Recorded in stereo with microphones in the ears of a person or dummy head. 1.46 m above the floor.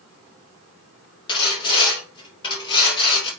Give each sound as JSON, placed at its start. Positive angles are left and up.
{"t": 1.3, "sound": "sawing", "side_deg": 25, "distance_m": 2.5}